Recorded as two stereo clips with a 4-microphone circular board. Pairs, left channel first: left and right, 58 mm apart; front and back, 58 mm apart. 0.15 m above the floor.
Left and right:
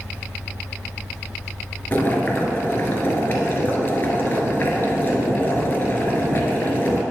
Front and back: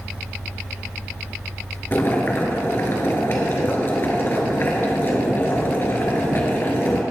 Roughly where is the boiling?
Ahead left.